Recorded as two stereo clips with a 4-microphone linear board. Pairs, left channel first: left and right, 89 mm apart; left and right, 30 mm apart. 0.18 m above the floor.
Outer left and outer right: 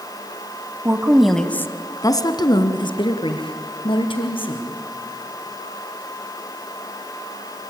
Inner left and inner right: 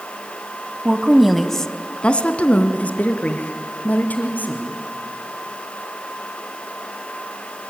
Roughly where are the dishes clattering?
No dishes clattering in this recording.